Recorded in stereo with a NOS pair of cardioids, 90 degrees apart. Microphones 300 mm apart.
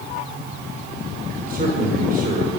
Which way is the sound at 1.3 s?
30° right.